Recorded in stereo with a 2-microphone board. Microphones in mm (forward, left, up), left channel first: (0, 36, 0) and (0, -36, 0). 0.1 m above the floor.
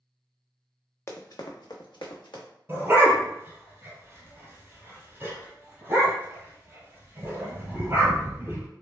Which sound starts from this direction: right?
A dog barking, at 2.7 s.